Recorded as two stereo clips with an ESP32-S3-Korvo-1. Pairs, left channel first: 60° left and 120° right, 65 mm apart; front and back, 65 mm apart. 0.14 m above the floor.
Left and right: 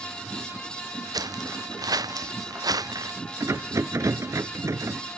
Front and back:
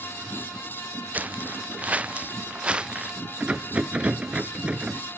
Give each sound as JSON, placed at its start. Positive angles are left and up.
{"t": 1.1, "sound": "footsteps", "azimuth_deg": -115}
{"t": 3.4, "sound": "a rattle", "azimuth_deg": -115}